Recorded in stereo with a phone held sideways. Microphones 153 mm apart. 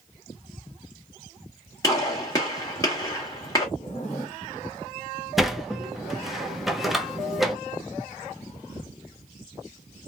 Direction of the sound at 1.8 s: 20° left (ahead or behind).